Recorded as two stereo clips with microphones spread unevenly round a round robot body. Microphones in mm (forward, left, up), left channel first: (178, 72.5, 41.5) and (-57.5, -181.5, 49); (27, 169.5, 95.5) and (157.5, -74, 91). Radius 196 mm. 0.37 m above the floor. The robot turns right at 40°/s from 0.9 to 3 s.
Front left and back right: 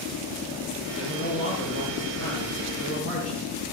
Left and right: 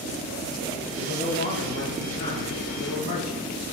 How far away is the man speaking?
About 6.5 m.